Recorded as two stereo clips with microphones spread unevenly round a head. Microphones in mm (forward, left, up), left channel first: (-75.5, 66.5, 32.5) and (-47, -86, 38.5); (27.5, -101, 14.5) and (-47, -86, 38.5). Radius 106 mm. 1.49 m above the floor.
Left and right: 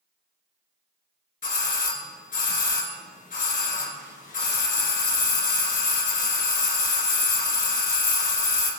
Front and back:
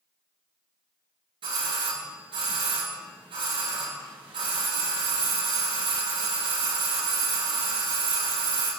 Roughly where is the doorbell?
Behind left.